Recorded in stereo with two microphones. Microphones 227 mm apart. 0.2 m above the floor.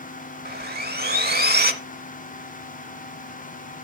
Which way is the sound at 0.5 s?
50° right (ahead or behind).